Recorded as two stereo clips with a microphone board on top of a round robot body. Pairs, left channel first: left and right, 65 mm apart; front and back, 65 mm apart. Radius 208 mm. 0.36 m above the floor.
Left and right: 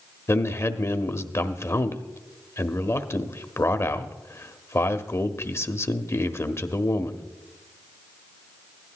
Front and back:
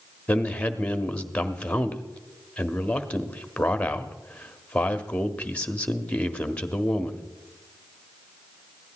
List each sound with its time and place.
0.3 s a man speaking: 65° left, 1.3 m